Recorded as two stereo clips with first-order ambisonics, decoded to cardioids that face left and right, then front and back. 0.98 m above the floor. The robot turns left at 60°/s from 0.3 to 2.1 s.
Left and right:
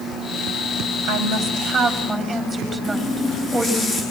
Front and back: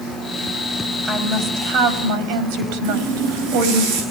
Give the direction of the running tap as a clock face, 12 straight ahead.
7 o'clock.